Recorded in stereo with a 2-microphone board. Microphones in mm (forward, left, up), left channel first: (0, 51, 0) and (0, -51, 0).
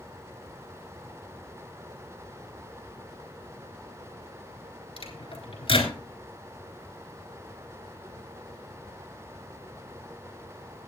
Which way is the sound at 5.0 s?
70° left (ahead or behind).